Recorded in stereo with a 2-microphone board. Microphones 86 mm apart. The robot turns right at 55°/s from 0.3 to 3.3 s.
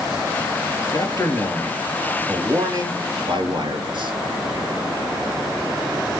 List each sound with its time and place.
0.9 s a man speaking: 120° left, 4 m; by 4.1 s 110° right, 4 m